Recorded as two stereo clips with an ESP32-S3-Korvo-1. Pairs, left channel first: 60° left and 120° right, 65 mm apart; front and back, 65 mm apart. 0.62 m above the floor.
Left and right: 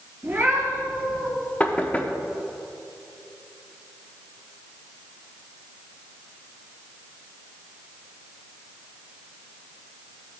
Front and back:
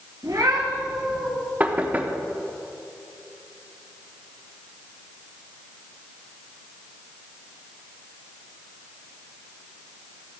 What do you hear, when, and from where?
0.2 s a cat meowing: 170° right, 3.5 m; by 1.3 s 175° left, 4 m
1.6 s knocking: 120° left, 0.9 m